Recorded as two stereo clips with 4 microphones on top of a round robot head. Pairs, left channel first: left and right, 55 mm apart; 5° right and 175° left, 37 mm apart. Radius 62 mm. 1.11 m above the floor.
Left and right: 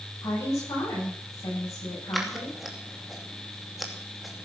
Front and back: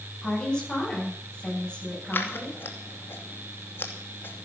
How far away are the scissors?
About 2.5 m.